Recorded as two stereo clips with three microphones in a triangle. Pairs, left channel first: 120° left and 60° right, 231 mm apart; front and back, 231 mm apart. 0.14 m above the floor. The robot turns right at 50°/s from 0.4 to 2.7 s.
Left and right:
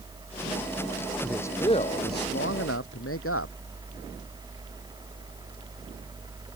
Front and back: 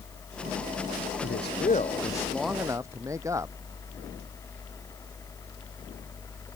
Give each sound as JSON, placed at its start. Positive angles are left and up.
{"t": 1.2, "sound": "a man speaking", "azimuth_deg": 30}